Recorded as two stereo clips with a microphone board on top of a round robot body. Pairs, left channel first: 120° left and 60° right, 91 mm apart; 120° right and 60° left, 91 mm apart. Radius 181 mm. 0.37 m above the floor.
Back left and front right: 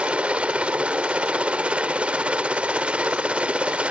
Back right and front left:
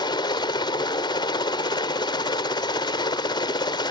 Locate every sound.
0.0 s a helicopter: 135° right